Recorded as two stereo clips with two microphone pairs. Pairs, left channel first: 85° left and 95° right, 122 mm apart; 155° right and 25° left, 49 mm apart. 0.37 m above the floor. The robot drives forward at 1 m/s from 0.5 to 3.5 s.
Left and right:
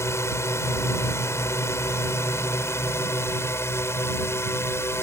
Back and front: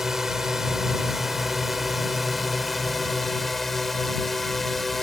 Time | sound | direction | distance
0.0 | a drone | 95° left | ?